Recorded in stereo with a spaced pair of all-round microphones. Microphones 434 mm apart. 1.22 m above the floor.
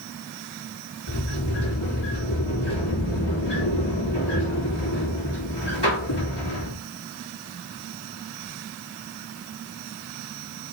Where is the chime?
No chime in this recording.